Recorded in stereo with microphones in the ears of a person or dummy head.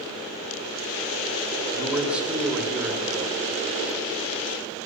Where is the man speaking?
Centre (ahead or behind), 2.0 m.